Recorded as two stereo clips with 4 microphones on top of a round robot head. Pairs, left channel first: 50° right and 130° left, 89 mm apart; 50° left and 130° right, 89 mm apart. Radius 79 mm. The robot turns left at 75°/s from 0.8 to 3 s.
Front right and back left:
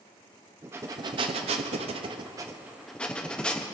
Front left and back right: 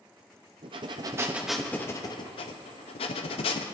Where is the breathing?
165° right, 0.7 m; by 3.6 s 30° left, 0.7 m.